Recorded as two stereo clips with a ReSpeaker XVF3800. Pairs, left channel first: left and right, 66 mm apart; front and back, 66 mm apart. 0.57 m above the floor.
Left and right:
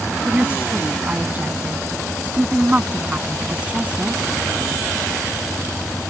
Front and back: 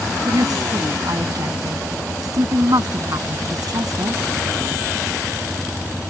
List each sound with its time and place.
0.2 s a woman speaking: 155° right